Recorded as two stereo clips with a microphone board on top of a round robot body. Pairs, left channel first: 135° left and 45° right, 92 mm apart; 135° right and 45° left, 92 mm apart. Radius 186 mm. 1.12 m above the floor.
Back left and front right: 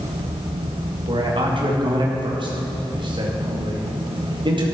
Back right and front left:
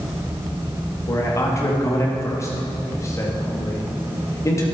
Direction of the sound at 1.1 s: 75° right.